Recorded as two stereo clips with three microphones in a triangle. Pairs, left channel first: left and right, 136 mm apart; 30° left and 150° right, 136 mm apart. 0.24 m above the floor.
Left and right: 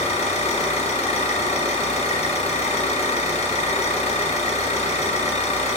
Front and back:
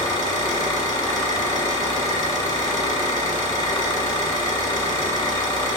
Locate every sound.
0.0 s an engine running: 80° left, 1.3 m